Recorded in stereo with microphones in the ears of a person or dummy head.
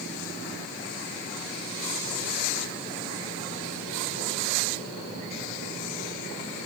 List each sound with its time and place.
Only background noise.